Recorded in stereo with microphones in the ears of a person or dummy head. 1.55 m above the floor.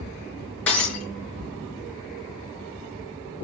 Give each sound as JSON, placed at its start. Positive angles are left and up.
{"t": 0.7, "sound": "breaking glass", "side_deg": 5, "distance_m": 4.5}